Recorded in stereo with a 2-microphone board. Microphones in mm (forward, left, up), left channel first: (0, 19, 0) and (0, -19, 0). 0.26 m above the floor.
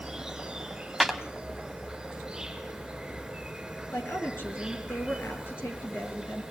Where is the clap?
Centre (ahead or behind), 1.3 m.